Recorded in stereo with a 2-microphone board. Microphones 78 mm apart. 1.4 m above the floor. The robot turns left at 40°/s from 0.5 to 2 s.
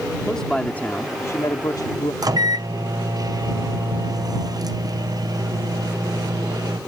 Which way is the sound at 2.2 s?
55° right (ahead or behind).